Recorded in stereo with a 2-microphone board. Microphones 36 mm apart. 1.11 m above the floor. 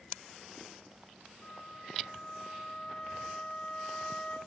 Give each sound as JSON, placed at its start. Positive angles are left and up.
{"t": 1.4, "sound": "a flute", "side_deg": 30, "distance_m": 4.0}